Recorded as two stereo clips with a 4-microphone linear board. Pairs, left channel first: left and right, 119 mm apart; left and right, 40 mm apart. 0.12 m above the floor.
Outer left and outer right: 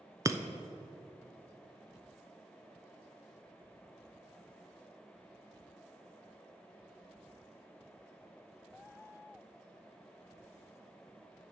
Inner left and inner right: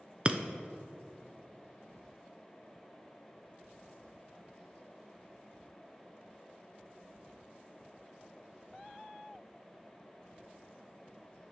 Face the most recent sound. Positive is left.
turn(degrees=-25)  # may be behind; listen again after turning